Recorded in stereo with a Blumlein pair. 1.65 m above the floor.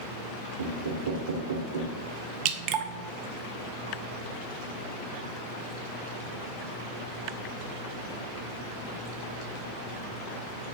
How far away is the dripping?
About 0.6 m.